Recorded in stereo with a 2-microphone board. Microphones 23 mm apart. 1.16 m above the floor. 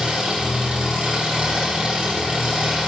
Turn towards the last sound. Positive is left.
turn(degrees=-80)